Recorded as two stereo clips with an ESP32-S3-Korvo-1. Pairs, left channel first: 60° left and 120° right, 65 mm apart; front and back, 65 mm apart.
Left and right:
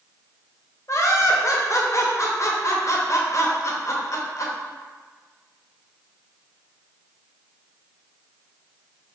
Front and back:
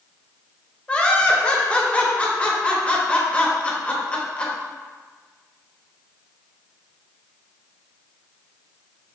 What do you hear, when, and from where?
0.9 s laughter: 65° left, 0.6 m